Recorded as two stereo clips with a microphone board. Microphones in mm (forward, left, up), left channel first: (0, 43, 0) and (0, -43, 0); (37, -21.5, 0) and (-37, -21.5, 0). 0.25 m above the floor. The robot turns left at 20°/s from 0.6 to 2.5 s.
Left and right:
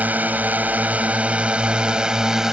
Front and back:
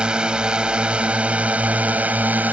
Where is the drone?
125° right; by 2.5 s 165° right.